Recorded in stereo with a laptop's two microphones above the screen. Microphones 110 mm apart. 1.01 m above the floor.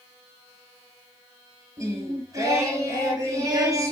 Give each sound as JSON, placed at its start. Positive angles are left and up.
{"t": 1.8, "sound": "singing", "side_deg": -30, "distance_m": 4.5}